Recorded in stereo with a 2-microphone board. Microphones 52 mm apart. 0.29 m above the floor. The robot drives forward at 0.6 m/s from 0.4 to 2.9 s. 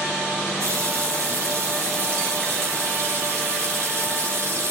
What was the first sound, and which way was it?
A running tap, 70° right (ahead or behind).